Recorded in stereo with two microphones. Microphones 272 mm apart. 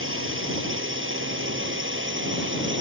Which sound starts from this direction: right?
A drone, at 0.0 s.